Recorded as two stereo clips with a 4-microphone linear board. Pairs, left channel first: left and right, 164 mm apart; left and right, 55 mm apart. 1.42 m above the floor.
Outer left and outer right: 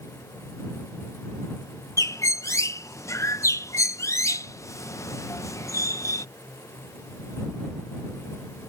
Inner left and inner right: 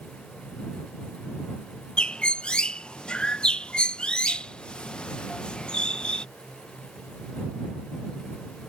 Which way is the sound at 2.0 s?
20° left (ahead or behind).